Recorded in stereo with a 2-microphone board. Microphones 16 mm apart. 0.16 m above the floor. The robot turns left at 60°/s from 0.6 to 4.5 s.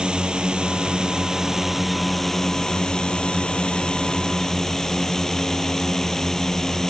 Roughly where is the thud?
I don't hear a thud.